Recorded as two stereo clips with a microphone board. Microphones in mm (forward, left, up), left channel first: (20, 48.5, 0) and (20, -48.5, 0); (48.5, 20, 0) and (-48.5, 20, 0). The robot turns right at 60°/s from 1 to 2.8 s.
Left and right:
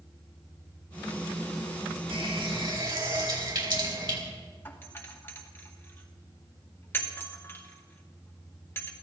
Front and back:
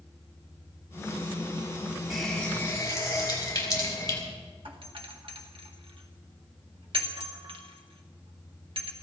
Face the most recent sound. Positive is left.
turn(degrees=155)